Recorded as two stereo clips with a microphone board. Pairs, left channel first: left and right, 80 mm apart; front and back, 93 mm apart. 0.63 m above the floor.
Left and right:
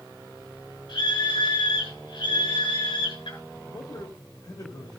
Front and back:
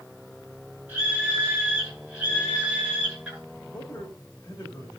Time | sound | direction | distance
0.9 | a scream | 105° left | 6.5 m
3.7 | a man speaking | 65° left | 2.5 m